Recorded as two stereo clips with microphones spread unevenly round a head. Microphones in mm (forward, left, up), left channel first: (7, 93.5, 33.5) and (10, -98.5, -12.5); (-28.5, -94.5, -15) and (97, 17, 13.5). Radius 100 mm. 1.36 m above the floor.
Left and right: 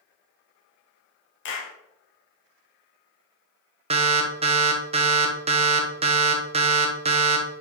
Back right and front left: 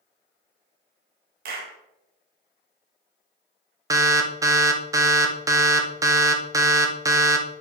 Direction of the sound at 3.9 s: 30° right.